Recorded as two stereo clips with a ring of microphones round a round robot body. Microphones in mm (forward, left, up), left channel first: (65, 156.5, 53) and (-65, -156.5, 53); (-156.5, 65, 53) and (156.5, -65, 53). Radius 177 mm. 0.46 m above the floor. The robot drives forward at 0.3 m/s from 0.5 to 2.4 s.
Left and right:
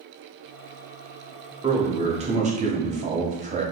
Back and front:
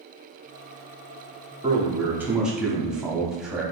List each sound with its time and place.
1.6 s a man speaking: 65° right, 1.0 m; by 3.6 s 105° right, 1.0 m